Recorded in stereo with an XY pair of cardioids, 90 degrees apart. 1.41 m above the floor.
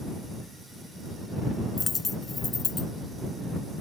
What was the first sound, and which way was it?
A dropped coin, 40° left.